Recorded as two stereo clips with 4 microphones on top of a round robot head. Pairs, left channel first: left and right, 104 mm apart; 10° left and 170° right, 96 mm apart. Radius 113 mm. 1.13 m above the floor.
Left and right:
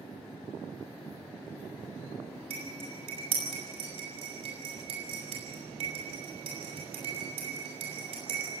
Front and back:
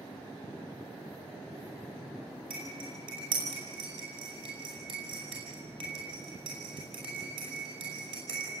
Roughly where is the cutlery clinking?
Behind right.